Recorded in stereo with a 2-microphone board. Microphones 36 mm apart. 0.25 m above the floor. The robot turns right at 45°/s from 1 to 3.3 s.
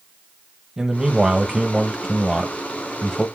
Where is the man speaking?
20° right (ahead or behind), 1.0 m; by 3.3 s 20° left (ahead or behind), 1.0 m.